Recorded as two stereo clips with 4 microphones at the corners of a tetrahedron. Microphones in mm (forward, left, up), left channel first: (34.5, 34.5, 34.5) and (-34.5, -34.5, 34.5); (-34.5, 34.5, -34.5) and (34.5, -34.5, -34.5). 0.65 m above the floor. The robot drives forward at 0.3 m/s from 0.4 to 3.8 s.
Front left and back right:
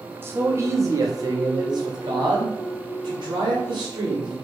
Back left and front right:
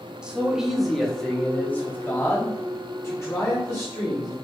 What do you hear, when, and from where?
0.2 s a man speaking: 110° right, 0.5 m; by 4.3 s 170° right, 1.2 m